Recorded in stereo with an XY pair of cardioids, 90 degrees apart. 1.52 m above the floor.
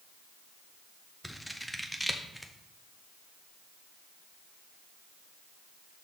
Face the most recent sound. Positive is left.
turn(degrees=0)